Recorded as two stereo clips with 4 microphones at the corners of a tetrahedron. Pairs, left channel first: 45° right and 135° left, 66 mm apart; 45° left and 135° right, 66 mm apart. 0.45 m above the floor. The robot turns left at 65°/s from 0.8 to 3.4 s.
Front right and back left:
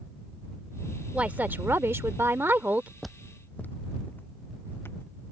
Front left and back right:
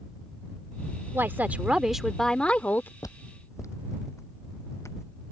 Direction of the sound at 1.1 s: 165° right.